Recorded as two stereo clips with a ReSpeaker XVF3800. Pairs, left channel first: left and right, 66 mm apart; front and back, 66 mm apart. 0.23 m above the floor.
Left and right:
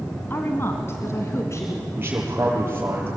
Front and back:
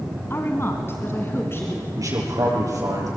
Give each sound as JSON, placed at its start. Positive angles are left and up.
{"t": 0.3, "sound": "a woman speaking", "azimuth_deg": 40, "distance_m": 1.8}
{"t": 2.0, "sound": "a man speaking", "azimuth_deg": -150, "distance_m": 7.0}